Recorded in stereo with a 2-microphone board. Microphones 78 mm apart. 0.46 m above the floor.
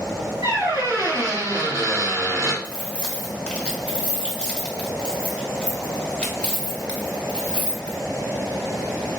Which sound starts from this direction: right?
A squeak, at 0.4 s.